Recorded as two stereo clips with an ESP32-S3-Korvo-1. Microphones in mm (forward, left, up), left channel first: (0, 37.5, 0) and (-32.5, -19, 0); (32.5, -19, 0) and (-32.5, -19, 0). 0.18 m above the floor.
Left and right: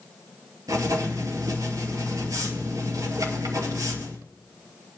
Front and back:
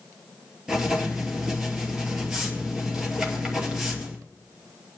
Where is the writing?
100° right, 2.5 m.